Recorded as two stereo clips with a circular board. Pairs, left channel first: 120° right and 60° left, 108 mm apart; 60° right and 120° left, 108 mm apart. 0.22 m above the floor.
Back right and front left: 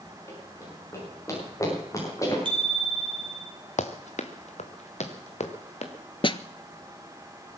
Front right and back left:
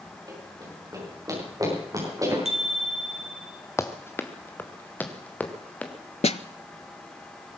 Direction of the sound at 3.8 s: 125° right.